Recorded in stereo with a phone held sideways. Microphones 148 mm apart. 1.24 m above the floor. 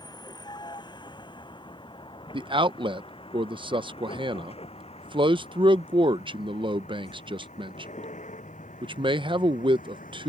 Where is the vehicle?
30° left (ahead or behind); by 10.3 s 65° left (ahead or behind).